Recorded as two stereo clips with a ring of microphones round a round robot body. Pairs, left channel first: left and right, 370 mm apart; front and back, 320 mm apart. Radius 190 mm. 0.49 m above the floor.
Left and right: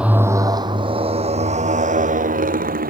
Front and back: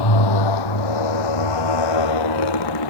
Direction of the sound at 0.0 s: 5° right.